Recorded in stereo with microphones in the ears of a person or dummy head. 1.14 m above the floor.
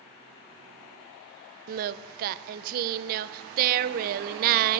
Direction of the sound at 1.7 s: 45° right (ahead or behind).